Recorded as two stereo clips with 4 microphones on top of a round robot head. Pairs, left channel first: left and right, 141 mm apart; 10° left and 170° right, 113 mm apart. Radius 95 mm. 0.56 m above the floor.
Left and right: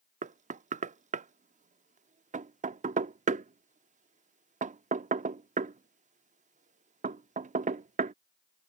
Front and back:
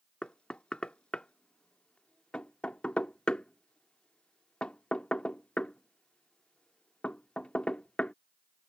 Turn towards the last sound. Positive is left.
turn(degrees=-70)